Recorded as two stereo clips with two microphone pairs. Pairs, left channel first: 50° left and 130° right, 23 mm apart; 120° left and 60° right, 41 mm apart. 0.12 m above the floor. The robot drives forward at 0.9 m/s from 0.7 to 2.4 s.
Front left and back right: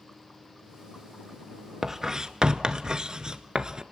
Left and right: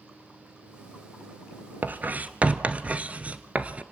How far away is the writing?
About 1.2 m.